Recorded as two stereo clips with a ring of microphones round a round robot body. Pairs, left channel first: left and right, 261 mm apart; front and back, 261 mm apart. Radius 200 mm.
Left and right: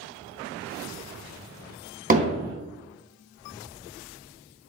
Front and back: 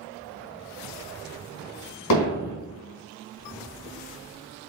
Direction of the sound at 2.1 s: 35° right.